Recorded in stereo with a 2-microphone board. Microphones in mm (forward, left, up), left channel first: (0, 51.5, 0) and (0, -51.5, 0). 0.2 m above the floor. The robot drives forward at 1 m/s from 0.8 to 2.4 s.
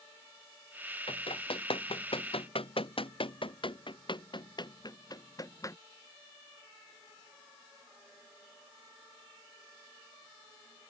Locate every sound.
1.1 s running footsteps: 65° left (ahead or behind); by 5.8 s 30° left (ahead or behind)